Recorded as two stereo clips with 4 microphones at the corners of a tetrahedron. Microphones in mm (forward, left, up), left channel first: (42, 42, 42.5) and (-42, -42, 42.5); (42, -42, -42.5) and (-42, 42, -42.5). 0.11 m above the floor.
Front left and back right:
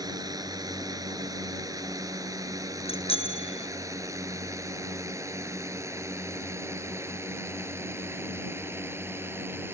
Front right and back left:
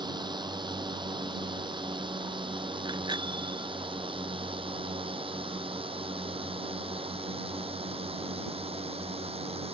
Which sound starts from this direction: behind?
A drone, at 0.0 s.